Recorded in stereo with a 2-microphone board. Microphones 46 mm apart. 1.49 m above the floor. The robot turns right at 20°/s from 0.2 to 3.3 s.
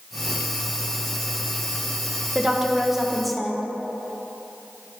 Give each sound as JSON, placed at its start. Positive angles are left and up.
{"t": 2.4, "sound": "a woman speaking", "side_deg": -15, "distance_m": 1.0}